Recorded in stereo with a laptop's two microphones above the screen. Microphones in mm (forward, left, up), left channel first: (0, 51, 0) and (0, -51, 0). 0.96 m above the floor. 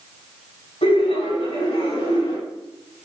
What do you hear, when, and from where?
0.8 s laughter: 80° left, 5 m